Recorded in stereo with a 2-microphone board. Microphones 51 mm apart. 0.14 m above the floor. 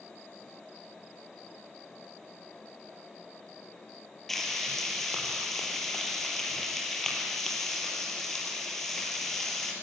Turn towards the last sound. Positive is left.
turn(degrees=5)  # may be behind; listen again after turning